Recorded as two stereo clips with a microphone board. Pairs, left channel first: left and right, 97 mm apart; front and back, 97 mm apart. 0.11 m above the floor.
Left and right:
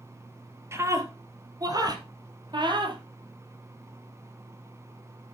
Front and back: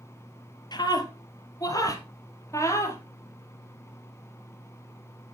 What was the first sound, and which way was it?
A scream, 35° right.